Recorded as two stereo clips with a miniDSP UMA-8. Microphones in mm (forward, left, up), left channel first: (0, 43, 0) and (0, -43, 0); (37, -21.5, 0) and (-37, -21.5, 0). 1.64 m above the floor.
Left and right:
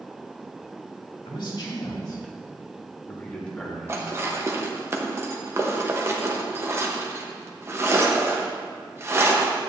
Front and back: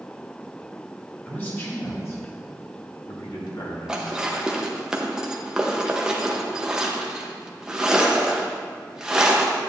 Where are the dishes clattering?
110° right, 0.9 m.